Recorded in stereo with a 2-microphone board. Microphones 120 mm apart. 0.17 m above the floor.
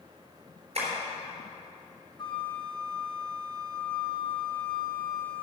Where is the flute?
45° left (ahead or behind), 0.8 m.